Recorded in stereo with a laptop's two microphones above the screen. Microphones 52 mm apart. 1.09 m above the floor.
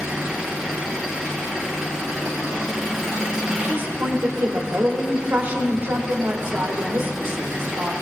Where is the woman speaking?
45° right (ahead or behind), 1.4 m.